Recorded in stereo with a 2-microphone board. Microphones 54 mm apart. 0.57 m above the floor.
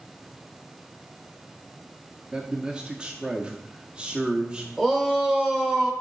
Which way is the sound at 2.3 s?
15° right (ahead or behind).